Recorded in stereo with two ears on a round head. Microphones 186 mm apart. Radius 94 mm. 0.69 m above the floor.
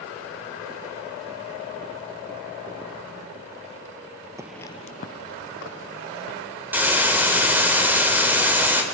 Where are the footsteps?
15° right (ahead or behind), 0.7 m; by 6.4 s 65° left (ahead or behind), 3 m.